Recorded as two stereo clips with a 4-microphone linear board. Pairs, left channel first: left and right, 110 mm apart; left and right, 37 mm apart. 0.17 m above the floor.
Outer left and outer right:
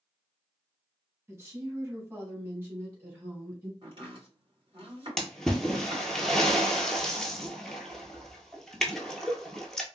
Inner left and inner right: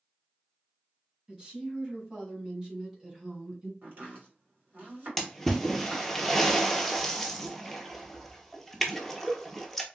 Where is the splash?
5° left (ahead or behind), 0.7 m.